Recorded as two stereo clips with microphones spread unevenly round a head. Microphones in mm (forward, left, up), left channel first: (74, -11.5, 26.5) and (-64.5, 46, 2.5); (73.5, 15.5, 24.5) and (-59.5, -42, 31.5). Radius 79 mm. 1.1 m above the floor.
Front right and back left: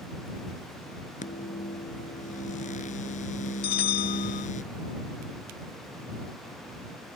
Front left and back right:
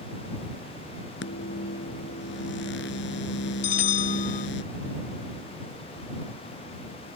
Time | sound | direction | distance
1.2 | a microwave | 20° left | ?
3.6 | a bell | 15° right | ?